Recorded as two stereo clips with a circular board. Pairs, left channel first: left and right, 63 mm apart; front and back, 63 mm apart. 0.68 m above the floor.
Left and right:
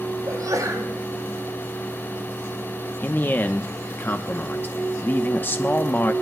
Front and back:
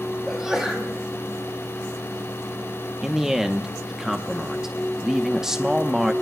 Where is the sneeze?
100° right, 4.5 m.